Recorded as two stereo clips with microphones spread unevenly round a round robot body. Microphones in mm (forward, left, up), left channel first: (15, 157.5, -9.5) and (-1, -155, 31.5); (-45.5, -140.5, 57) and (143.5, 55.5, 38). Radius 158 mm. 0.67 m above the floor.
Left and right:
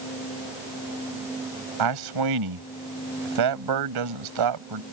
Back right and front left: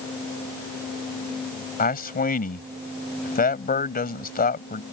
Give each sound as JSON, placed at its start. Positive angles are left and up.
{"t": 1.8, "sound": "a man speaking", "azimuth_deg": -75}